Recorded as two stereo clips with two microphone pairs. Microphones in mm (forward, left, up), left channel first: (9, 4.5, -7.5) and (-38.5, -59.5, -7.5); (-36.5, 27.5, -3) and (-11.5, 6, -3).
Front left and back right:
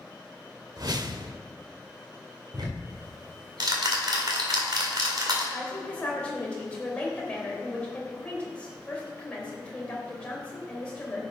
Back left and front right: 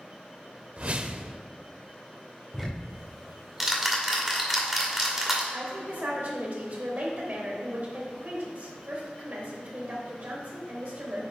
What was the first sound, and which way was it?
A whoosh, 90° right.